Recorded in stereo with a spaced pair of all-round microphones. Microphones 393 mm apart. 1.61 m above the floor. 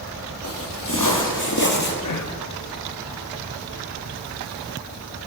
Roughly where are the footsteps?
Left.